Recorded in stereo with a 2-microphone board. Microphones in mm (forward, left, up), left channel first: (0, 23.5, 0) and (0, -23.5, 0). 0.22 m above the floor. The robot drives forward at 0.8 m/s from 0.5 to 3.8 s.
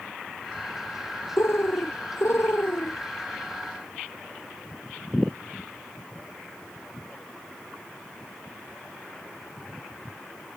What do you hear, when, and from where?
1.4 s a bird: 65° left (ahead or behind); by 3.0 s 55° left (ahead or behind)